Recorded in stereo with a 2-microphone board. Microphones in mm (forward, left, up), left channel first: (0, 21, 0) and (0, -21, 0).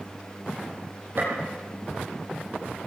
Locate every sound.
1.2 s a gunshot: 55° right (ahead or behind), 7 m